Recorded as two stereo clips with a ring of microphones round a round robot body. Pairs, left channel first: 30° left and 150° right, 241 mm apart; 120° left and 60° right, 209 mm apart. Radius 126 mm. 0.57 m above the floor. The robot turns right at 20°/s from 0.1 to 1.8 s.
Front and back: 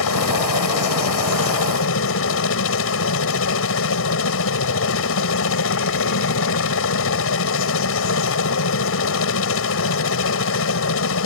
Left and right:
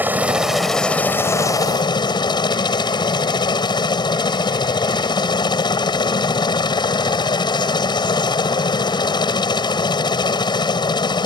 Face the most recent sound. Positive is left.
turn(degrees=55)